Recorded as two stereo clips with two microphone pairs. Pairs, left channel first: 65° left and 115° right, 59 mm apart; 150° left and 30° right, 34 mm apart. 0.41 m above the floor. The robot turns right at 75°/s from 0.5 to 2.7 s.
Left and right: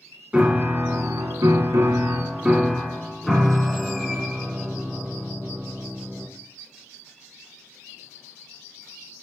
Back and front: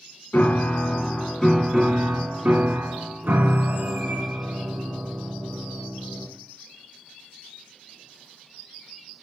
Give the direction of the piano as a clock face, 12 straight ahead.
6 o'clock.